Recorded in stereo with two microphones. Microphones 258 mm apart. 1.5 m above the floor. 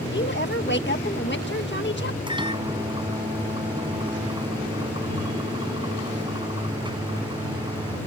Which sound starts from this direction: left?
A woman speaking, at 0.1 s.